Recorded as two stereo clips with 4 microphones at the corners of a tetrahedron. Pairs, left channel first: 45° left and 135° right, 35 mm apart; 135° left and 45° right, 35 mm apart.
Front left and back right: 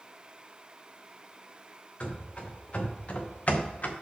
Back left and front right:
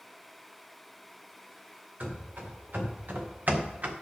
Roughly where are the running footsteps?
Ahead.